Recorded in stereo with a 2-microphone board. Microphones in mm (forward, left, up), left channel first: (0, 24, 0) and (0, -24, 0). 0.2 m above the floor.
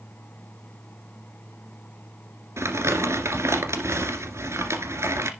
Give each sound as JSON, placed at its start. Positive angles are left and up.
{"t": 2.6, "sound": "crumpling", "side_deg": -70, "distance_m": 1.8}